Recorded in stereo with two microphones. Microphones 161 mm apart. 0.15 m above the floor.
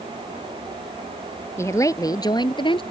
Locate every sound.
1.6 s a woman speaking: 15° left (ahead or behind); by 2.8 s 30° left (ahead or behind)